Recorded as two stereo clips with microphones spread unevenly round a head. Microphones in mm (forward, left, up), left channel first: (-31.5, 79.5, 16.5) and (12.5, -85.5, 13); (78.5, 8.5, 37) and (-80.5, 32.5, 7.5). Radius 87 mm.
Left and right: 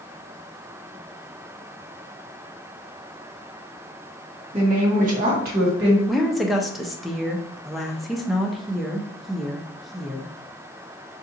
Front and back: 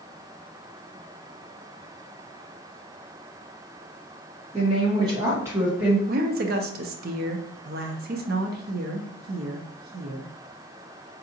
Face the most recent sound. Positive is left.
turn(degrees=-165)